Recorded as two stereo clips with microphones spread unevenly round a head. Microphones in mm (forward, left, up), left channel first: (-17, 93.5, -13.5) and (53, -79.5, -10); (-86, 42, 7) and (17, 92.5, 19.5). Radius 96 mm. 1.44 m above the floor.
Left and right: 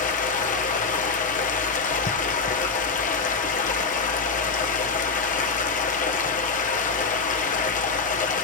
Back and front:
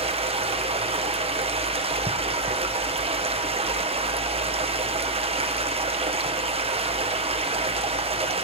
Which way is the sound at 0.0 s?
60° left.